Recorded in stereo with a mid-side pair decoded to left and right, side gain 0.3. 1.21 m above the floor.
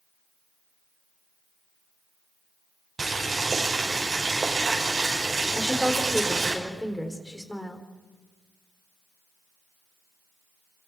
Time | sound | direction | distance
3.0 | boiling | 45° right | 6 m
5.5 | a woman speaking | 15° left | 4 m